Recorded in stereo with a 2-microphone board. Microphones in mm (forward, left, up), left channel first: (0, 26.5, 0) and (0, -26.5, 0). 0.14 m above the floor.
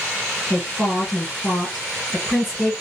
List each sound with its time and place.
0.5 s a woman speaking: 5° right (ahead or behind), 1.5 m